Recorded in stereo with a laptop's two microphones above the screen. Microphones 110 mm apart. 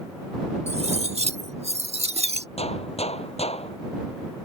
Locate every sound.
0.7 s cutlery clinking: 85° right
2.6 s a gunshot: 75° left (ahead or behind)